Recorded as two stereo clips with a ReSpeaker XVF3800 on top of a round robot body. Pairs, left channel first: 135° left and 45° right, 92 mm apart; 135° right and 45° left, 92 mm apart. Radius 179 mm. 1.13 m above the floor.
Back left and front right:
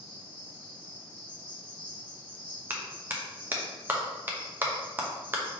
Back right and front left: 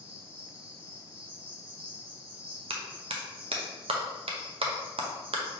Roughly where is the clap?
Ahead left.